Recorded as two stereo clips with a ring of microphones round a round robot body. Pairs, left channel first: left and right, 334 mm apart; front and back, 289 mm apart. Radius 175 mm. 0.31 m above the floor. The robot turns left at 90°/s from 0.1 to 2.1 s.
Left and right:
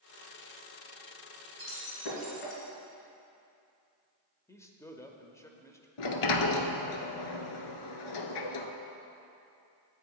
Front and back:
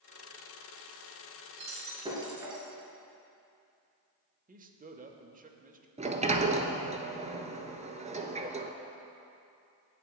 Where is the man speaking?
165° left, 0.9 m.